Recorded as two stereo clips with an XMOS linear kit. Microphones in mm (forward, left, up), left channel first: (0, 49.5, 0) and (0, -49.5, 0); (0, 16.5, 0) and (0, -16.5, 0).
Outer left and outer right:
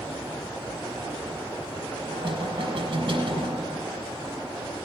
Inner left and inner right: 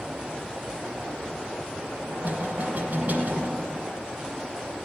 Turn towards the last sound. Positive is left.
turn(degrees=-50)  # may be behind; listen again after turning